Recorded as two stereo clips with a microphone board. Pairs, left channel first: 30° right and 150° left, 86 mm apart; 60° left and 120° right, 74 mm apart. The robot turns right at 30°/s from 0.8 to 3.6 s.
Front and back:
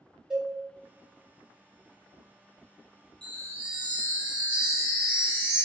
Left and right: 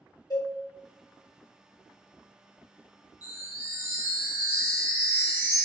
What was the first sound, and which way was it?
A cowbell, 70° left.